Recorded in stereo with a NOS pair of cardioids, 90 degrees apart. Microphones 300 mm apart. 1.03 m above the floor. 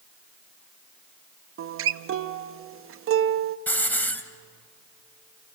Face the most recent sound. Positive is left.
turn(degrees=5)